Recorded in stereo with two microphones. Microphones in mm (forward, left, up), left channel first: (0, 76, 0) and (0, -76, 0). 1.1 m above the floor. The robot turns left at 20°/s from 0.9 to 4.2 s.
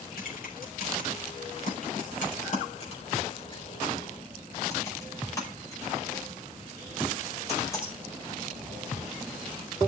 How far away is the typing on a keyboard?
About 5 m.